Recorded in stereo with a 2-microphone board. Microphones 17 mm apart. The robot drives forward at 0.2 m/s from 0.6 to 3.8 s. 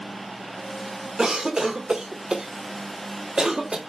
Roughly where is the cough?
Right.